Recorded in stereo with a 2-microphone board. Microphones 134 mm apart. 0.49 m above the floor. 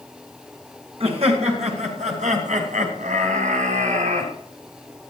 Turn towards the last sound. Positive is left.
turn(degrees=-65)  # may be behind; listen again after turning